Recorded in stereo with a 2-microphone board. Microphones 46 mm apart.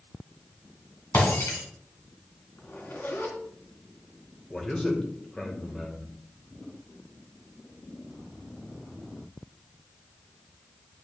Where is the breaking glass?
60° left (ahead or behind), 2 m.